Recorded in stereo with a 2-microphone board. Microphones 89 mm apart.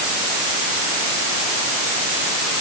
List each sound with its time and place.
Only background noise.